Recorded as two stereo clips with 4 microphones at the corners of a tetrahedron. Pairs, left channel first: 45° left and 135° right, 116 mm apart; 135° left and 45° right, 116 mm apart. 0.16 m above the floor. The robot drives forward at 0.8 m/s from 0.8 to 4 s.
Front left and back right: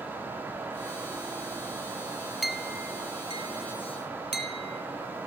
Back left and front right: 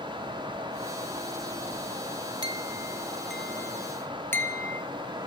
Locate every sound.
2.4 s a clink: 45° right, 0.8 m; by 4.8 s 160° right, 1.1 m